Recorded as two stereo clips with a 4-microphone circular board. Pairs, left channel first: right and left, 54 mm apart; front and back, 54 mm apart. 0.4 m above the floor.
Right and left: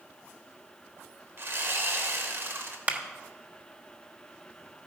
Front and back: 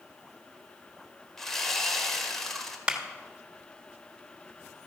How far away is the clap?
About 1.1 m.